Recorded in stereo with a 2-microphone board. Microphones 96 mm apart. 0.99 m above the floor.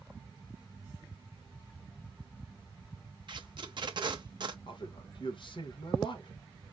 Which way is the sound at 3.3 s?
50° right (ahead or behind).